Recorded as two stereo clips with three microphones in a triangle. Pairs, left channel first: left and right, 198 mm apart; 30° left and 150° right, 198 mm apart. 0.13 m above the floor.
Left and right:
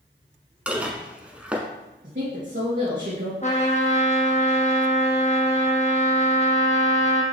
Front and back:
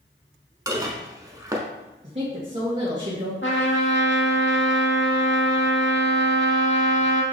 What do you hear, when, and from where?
0.7 s dishes clattering: 160° right, 0.7 m
2.0 s a woman speaking: 110° right, 1.7 m
3.4 s a trumpet: 40° left, 1.1 m